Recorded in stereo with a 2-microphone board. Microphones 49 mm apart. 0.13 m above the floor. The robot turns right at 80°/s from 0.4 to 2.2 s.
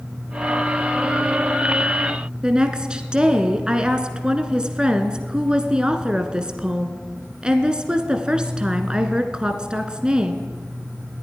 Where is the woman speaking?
15° right (ahead or behind), 1.3 m.